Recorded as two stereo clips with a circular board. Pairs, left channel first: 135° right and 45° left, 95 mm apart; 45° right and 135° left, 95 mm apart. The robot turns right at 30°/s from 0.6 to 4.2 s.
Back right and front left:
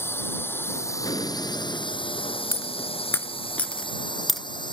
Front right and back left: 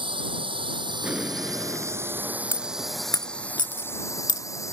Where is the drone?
160° left; by 4.7 s 100° right.